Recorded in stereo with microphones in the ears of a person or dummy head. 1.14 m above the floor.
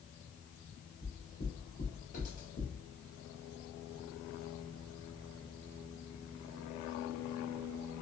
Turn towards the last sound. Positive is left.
turn(degrees=30)  # may be behind; listen again after turning